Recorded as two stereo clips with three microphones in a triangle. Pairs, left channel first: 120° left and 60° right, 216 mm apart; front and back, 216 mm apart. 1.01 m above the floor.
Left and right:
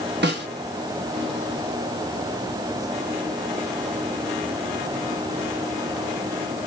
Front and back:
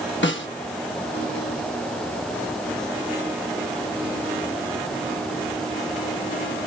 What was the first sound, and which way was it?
A snare drum, 25° right.